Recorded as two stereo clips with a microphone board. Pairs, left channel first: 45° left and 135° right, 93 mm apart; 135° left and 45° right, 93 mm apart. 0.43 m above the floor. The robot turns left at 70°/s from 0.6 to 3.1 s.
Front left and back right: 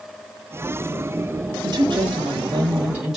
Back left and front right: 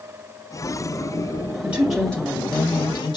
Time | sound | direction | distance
1.6 | a woman speaking | 115° right | 1.8 m